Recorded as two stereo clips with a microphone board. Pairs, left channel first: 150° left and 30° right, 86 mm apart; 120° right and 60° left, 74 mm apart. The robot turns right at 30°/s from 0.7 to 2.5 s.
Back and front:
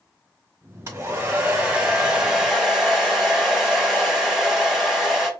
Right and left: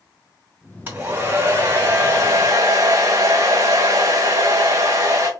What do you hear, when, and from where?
0.9 s a hair dryer: 5° left, 2.0 m; by 5.3 s 55° left, 2.0 m